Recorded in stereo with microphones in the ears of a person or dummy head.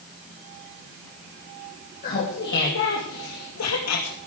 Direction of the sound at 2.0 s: 45° left (ahead or behind).